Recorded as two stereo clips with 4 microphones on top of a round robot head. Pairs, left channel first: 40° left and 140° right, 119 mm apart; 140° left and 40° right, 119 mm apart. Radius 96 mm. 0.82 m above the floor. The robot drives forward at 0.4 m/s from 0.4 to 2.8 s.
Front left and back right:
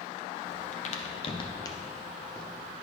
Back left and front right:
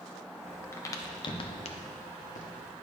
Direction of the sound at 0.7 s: 65° left.